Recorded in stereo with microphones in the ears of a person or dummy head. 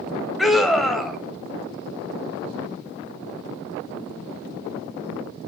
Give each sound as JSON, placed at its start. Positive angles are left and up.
{"t": 0.4, "sound": "a scream", "side_deg": 0, "distance_m": 1.1}